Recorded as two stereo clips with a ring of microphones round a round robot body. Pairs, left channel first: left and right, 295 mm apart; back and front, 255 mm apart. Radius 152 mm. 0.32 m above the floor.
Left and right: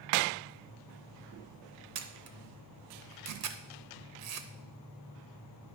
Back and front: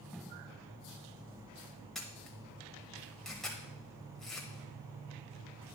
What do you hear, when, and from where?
1.9 s a camera shutter: 90° right, 0.8 m